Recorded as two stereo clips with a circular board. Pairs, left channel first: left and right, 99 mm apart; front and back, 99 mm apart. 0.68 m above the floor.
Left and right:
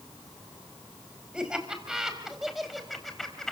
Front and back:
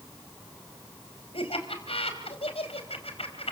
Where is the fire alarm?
No fire alarm in this recording.